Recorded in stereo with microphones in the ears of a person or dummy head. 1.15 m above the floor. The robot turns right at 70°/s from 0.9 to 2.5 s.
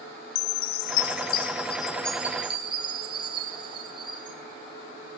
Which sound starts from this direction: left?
A chime, at 0.3 s.